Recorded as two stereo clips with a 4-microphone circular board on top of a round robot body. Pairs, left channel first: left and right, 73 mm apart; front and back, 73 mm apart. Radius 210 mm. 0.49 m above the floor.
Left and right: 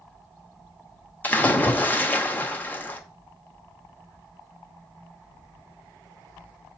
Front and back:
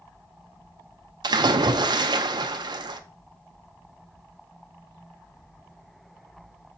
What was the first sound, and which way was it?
A splash, 160° left.